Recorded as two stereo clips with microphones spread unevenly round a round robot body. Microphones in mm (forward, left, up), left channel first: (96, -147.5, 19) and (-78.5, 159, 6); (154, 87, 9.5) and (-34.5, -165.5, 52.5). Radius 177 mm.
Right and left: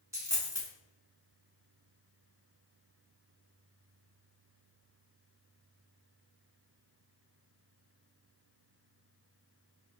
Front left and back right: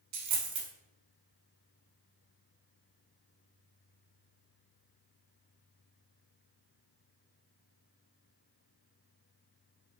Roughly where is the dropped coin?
Behind.